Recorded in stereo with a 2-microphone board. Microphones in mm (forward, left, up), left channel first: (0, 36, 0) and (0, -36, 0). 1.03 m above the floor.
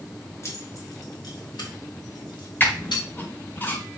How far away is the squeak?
About 1.0 m.